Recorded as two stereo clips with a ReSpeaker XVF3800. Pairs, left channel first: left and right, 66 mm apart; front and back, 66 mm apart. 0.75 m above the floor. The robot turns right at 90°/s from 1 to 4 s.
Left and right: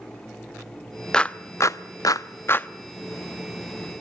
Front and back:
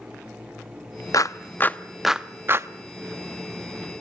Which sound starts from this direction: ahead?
A clap, at 1.1 s.